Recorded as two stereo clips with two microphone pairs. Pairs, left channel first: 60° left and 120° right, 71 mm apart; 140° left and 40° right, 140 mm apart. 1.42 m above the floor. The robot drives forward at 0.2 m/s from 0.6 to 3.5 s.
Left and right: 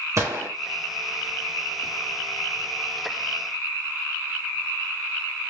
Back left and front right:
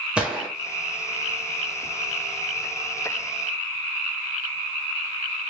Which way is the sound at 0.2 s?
120° right.